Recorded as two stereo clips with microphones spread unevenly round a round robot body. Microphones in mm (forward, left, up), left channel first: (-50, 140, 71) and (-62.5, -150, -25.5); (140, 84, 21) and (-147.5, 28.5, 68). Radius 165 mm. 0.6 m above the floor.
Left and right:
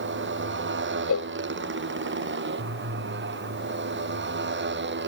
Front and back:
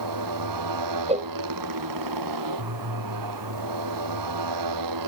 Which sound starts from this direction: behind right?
A motorcycle, at 0.0 s.